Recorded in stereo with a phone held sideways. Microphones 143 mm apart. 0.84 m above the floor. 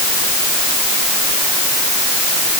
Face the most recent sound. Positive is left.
No sound to turn to.